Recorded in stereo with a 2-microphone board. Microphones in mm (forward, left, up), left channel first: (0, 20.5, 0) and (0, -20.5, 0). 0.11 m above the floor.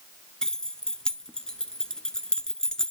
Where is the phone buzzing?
No phone buzzing in this recording.